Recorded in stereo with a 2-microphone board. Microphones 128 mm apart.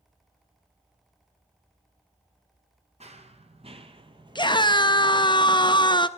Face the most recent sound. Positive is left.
turn(degrees=35)  # may be behind; listen again after turning